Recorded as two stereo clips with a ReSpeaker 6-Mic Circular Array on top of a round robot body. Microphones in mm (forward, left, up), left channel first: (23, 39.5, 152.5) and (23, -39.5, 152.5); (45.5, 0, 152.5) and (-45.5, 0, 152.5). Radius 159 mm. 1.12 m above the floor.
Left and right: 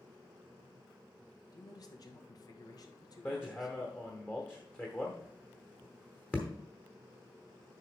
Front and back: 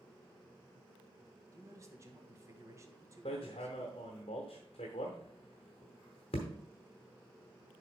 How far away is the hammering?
About 0.9 m.